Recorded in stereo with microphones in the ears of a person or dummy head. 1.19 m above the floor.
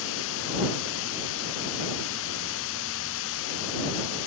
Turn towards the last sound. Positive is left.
turn(degrees=75)  # may be behind; listen again after turning